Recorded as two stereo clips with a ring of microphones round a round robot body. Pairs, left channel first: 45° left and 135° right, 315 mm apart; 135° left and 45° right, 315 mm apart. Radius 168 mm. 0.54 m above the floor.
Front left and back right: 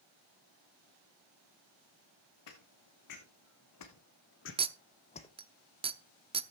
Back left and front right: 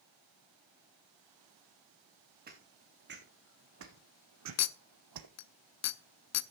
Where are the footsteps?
20° left, 3 m; by 5.3 s 30° right, 1.3 m.